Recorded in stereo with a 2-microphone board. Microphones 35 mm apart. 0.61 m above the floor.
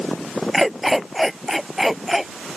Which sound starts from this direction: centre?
A dog barking, at 0.5 s.